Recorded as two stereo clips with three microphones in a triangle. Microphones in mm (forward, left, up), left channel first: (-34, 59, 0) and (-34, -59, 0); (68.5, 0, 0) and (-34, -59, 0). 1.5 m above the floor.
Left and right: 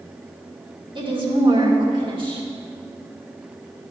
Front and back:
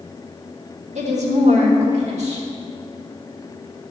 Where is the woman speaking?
140° right, 2.5 m.